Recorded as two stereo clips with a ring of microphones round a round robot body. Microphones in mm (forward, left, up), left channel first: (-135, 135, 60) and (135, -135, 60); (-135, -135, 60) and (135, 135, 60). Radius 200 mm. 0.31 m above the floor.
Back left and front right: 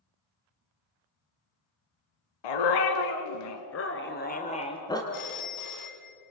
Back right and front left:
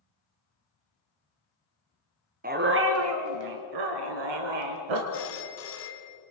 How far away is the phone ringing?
About 2.5 m.